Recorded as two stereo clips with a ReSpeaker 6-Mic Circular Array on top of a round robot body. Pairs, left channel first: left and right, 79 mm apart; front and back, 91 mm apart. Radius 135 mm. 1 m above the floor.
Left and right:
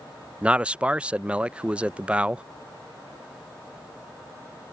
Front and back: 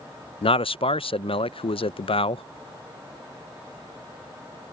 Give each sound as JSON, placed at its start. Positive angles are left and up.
{"t": 0.4, "sound": "a man speaking", "azimuth_deg": -15}